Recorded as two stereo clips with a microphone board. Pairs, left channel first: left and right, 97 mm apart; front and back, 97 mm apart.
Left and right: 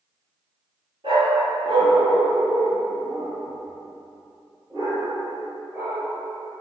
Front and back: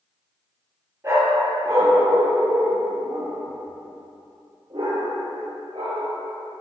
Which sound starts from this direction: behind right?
A dog barking, at 1.0 s.